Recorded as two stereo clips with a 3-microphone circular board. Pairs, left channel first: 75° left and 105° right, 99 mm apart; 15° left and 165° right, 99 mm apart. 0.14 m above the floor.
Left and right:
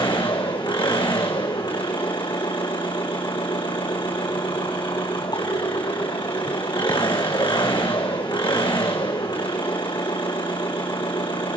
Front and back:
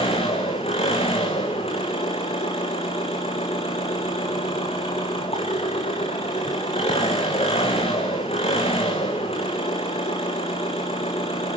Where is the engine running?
30° left, 5 m.